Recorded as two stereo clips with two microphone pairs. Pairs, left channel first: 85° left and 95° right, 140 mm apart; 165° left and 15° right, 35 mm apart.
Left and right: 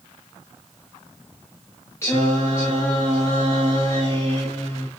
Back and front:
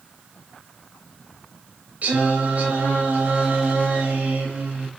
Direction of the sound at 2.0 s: 15° left.